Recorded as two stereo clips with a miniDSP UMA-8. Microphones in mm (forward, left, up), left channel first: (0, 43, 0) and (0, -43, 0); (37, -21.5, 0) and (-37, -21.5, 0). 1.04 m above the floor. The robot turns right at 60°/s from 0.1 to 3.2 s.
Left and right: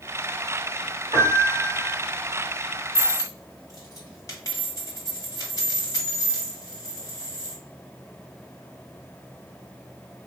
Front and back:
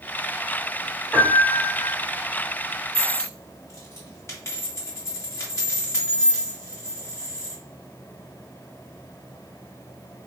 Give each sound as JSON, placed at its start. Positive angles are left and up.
{"t": 1.1, "sound": "a piano", "azimuth_deg": -80, "distance_m": 2.0}
{"t": 3.0, "sound": "a dropped coin", "azimuth_deg": 30, "distance_m": 1.7}